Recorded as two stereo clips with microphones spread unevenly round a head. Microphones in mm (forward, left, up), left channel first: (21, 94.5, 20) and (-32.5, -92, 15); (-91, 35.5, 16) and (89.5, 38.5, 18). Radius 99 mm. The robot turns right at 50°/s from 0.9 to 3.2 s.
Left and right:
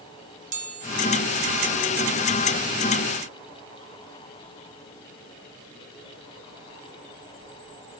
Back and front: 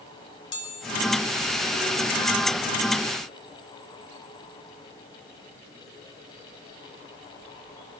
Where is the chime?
155° right, 2.5 m.